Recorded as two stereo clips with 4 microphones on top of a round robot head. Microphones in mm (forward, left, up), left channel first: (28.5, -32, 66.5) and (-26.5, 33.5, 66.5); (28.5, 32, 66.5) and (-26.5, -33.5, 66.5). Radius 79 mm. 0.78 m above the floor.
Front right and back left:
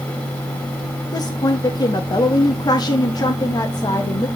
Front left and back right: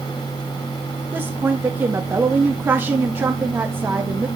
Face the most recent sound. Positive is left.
turn(degrees=-70)